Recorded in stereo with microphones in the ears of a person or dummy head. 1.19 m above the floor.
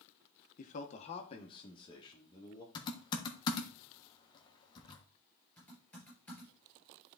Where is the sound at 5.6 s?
Centre (ahead or behind), 5 m.